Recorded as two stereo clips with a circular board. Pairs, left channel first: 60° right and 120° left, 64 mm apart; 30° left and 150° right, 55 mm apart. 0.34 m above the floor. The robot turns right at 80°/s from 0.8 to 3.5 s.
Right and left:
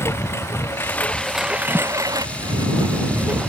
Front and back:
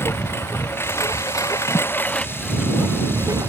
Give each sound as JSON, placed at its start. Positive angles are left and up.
{"t": 0.0, "sound": "a lawn mower", "azimuth_deg": -10}
{"t": 1.7, "sound": "a thud", "azimuth_deg": 45}